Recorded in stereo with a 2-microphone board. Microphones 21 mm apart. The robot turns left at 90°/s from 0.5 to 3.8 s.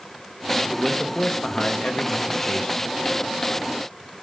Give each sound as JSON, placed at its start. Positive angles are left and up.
{"t": 0.7, "sound": "a man speaking", "azimuth_deg": -155, "distance_m": 0.6}